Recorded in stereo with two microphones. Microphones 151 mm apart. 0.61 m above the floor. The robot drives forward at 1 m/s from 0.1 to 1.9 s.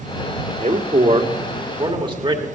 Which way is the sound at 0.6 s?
50° right (ahead or behind).